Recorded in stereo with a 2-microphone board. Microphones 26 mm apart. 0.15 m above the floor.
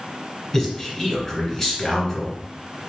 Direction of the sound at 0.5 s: 15° left (ahead or behind).